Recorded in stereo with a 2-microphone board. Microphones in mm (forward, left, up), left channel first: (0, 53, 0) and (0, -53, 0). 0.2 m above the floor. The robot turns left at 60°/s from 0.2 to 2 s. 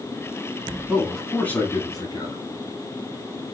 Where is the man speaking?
165° right, 1.9 m; by 2.4 s 130° left, 1.9 m.